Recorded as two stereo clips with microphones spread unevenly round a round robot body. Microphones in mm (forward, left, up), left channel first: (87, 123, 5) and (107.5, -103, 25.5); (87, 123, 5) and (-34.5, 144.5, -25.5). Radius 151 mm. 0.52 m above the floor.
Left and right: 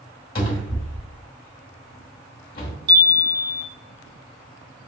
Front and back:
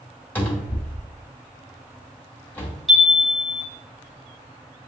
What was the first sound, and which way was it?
A cupboard door, 75° left.